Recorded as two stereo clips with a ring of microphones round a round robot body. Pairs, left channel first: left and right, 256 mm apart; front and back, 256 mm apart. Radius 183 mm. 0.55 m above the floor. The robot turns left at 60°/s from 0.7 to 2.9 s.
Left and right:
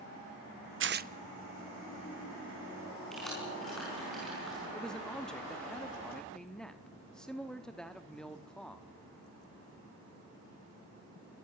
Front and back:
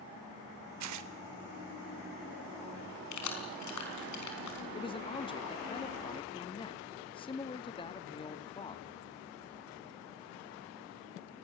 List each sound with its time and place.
0.8 s tearing paper: 135° right, 0.7 m; by 1.1 s 155° right, 0.7 m
3.1 s keys jangling: straight ahead, 4.5 m
4.7 s a man speaking: 10° left, 1.1 m